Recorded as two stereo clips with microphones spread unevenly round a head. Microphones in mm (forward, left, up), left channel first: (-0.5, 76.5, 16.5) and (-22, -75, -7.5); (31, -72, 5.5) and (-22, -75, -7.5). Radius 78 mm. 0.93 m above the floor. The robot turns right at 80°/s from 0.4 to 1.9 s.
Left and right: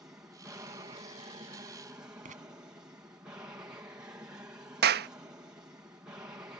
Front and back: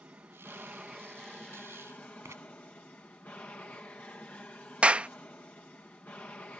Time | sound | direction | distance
0.0 | an aircraft | 160° right | ?
2.2 | writing | 140° right | ?
4.8 | a clap | 110° right | ?